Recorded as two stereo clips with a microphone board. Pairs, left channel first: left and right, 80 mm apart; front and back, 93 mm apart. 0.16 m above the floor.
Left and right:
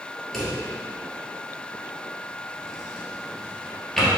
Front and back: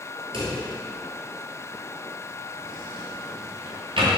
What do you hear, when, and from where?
0.3 s a drawer: 175° left, 1.3 m